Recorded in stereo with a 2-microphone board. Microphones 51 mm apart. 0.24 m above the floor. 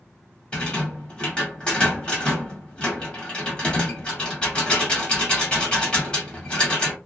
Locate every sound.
0.5 s a rattle: 20° left (ahead or behind), 1.1 m